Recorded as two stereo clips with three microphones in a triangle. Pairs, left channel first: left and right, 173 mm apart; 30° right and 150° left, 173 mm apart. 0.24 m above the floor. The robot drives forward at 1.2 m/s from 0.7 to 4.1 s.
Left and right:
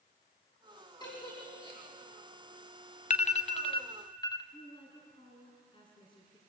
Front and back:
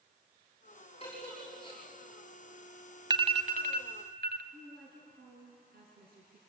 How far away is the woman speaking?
About 3 m.